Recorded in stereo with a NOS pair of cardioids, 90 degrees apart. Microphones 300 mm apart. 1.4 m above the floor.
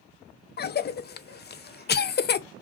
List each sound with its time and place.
0.6 s a cough: 35° left, 0.5 m